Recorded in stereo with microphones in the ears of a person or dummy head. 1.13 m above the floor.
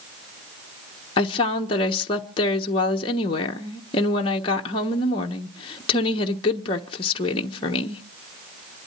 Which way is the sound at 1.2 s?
30° left (ahead or behind).